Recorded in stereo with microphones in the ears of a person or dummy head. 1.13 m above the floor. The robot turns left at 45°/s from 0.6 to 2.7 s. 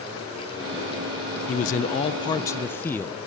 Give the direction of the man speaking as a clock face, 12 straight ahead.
10 o'clock.